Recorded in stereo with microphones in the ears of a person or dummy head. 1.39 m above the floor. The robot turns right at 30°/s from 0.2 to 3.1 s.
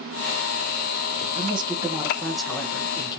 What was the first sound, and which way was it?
A woman speaking, 30° right.